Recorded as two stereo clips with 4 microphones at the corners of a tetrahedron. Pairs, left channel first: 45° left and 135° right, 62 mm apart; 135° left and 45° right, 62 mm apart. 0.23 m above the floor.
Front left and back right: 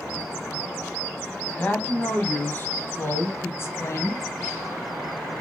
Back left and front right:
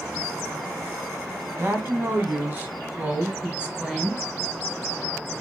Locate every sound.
1.6 s a woman speaking: 15° right, 2 m; by 4.2 s 35° left, 2 m